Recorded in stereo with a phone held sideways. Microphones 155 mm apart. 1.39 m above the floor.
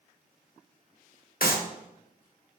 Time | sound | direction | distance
1.4 | a clap | 70° left (ahead or behind) | 0.9 m